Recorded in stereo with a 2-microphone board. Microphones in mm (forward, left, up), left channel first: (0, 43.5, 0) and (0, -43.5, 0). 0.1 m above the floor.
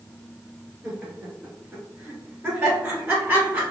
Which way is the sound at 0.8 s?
10° right (ahead or behind).